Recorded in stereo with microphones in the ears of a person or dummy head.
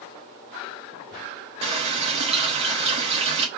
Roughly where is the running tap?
Right.